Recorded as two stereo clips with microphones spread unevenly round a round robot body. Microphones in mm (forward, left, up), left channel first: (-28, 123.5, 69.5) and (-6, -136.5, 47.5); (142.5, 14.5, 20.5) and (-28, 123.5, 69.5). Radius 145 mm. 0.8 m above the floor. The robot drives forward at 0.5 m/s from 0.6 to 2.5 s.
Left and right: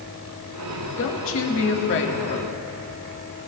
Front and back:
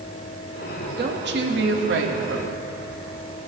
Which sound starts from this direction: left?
A woman speaking, at 1.0 s.